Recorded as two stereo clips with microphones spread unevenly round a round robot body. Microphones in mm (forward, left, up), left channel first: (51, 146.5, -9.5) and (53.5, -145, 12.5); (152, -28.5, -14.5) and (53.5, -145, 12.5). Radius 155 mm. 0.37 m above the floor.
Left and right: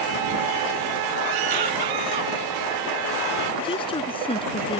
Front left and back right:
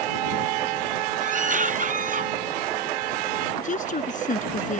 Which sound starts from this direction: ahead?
A woman speaking, at 3.6 s.